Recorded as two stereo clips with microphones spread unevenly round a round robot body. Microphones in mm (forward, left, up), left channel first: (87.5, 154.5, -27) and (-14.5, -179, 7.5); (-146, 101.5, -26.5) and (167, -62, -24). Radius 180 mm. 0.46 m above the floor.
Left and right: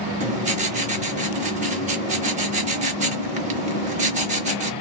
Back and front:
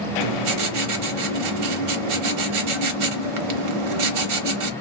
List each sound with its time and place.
0.2 s writing: 35° right, 0.9 m